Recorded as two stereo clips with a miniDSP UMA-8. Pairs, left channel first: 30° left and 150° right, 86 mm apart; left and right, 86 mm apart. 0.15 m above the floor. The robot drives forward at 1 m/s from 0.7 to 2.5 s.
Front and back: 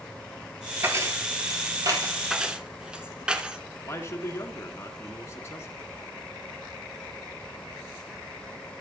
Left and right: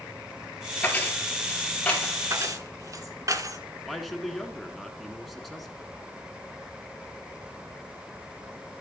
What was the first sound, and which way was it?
Keys jangling, 155° left.